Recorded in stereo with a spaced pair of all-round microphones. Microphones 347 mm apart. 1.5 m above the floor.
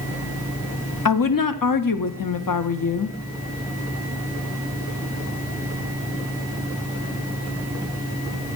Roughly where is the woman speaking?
Left.